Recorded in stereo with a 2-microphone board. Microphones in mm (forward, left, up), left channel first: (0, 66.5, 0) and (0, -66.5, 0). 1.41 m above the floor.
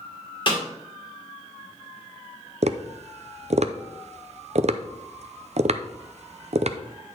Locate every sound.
0.5 s a snare drum: 40° left (ahead or behind), 2 m
2.6 s tapping: 60° right (ahead or behind), 0.5 m